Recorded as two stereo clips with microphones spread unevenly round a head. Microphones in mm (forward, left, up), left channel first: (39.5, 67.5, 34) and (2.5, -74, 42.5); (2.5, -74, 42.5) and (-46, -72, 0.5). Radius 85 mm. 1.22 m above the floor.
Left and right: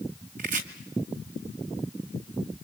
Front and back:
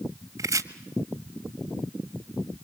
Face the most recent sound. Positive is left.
turn(degrees=-140)